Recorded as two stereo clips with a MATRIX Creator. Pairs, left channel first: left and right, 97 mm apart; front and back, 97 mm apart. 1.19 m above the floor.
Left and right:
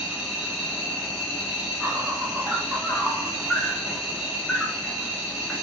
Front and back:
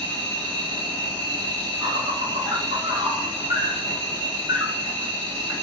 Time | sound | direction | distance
0.0 | an insect | 175° right | 2.0 m